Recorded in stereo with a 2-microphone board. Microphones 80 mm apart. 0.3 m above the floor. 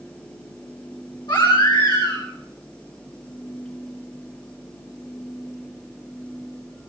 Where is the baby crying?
80° left, 8.5 m.